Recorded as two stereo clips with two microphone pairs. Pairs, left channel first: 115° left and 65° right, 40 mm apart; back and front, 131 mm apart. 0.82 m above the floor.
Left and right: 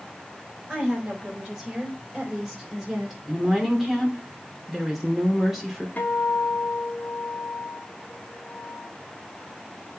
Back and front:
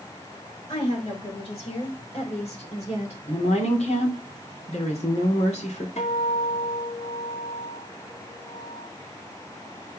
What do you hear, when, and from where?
0.7 s a woman speaking: 135° right, 5 m; by 3.2 s 145° right, 3.5 m
3.3 s a woman speaking: 150° right, 2.5 m
6.0 s a guitar: 160° left, 1.6 m